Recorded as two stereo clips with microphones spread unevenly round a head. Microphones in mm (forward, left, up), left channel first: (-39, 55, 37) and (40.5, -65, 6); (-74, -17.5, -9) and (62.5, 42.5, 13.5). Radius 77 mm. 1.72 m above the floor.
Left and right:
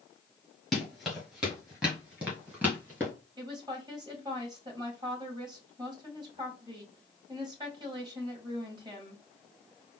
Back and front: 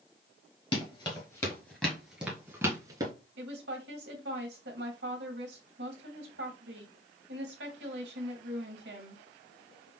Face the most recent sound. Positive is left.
turn(degrees=10)